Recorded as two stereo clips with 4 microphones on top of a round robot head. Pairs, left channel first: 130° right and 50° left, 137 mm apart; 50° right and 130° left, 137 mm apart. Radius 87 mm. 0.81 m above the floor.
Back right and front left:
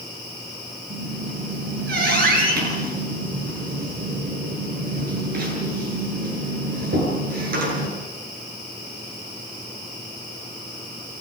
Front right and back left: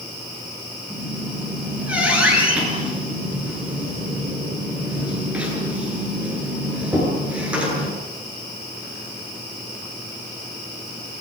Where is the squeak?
50° left, 9.5 m.